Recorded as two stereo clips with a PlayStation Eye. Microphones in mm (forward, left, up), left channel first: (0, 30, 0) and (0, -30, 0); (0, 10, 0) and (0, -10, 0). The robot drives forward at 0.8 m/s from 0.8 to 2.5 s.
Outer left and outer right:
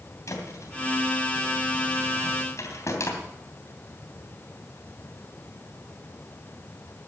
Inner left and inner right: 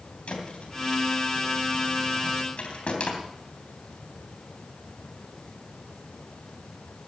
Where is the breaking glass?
No breaking glass in this recording.